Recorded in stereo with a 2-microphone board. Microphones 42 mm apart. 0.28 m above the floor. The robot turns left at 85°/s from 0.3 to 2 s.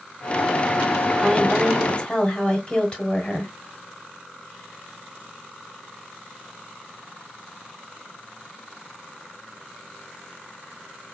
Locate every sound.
1.2 s a woman speaking: 5° right (ahead or behind), 1.2 m; by 3.5 s 25° left (ahead or behind), 1.2 m